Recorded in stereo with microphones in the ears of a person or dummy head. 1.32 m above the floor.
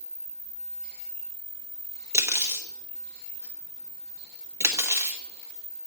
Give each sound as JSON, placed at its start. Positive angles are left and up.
{"t": 2.1, "sound": "cutlery clinking", "side_deg": -15, "distance_m": 0.8}